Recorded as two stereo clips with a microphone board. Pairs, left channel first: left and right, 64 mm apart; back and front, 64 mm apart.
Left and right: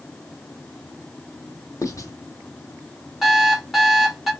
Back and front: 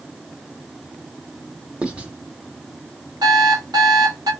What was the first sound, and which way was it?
Writing, 70° left.